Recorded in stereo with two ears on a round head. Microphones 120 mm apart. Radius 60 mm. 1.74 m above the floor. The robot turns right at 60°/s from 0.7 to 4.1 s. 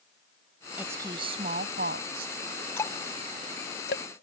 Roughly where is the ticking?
Centre.